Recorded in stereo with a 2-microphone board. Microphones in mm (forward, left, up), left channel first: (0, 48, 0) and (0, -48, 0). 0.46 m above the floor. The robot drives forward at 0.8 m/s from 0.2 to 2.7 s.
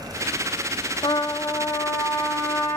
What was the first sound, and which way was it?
A trumpet, 55° left (ahead or behind).